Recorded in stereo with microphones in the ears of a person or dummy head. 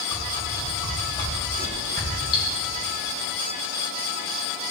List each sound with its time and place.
0.1 s a whoosh: 20° left (ahead or behind), 1.9 m
2.3 s cutlery clinking: 30° left (ahead or behind), 1.9 m